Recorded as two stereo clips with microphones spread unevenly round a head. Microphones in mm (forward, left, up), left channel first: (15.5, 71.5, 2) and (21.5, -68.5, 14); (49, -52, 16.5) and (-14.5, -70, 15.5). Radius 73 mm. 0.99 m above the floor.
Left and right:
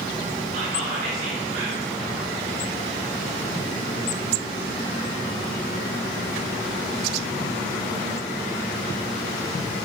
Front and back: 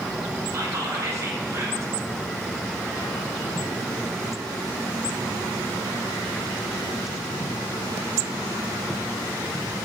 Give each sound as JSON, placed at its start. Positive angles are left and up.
{"t": 0.5, "sound": "whispering", "azimuth_deg": -135, "distance_m": 2.0}